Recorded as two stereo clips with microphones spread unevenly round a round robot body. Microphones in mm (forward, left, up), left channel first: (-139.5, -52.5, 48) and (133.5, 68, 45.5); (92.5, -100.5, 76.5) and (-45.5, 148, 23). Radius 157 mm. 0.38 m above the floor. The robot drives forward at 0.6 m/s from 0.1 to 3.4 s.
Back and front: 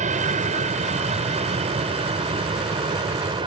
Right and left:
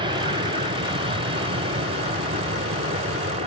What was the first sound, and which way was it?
An aircraft, 75° left.